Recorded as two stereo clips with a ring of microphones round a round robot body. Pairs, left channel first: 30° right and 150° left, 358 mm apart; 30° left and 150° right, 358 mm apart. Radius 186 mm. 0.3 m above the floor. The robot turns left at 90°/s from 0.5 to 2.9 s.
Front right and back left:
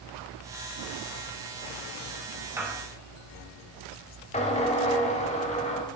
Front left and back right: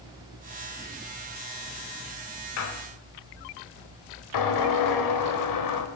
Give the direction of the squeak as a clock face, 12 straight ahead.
10 o'clock.